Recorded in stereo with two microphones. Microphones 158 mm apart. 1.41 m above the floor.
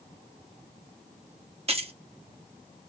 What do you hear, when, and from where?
1.7 s keys jangling: 40° right (ahead or behind), 0.7 m